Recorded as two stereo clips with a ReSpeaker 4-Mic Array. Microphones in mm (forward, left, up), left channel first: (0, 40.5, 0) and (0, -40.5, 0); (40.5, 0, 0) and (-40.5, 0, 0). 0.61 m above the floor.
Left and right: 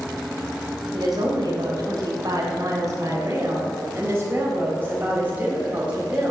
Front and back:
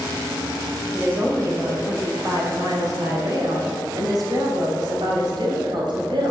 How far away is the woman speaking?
About 3 m.